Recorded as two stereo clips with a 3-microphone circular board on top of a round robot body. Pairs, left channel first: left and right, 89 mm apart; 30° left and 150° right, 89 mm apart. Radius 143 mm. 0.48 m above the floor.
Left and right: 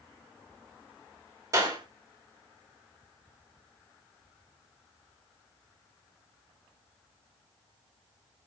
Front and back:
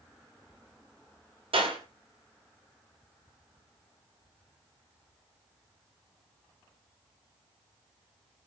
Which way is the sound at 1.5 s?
145° right.